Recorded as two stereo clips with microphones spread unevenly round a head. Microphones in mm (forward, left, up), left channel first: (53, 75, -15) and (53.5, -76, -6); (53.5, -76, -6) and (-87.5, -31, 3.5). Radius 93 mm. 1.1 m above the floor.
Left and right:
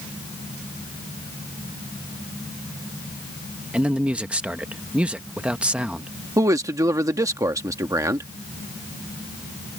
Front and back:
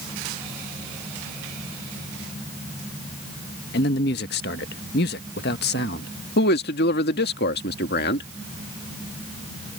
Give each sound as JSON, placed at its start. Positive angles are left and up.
{"t": 3.7, "sound": "a man speaking", "azimuth_deg": -5}
{"t": 6.4, "sound": "a man speaking", "azimuth_deg": -20}